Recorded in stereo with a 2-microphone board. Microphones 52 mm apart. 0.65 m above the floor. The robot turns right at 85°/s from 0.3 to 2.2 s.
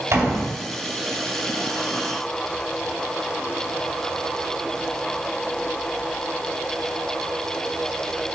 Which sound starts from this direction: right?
A door slam, at 0.1 s.